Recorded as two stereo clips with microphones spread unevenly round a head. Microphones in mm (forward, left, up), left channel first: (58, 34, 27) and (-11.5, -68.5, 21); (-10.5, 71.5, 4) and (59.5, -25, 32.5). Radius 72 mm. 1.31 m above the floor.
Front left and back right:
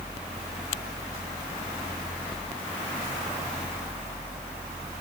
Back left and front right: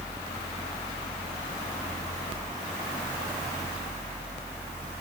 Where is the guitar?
I don't hear a guitar.